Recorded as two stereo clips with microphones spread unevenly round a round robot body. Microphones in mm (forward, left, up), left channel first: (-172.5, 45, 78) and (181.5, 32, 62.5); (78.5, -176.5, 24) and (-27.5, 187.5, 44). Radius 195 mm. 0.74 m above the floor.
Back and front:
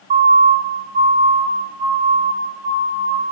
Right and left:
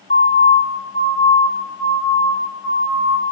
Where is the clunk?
I don't hear a clunk.